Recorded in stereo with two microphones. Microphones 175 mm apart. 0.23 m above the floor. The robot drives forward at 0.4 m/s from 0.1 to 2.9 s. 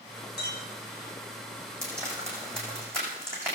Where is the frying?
15° right (ahead or behind), 8 m.